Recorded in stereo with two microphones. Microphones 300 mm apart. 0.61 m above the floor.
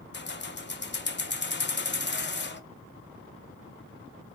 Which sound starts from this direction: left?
Keys jangling, at 0.1 s.